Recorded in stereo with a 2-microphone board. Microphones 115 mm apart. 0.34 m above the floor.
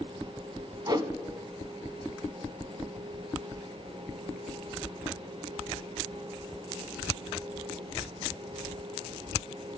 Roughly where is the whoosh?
Right.